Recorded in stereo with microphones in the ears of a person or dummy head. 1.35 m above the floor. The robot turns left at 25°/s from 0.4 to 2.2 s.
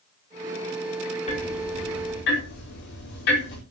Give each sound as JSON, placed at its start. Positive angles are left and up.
{"t": 1.3, "sound": "ticking", "side_deg": 40, "distance_m": 4.5}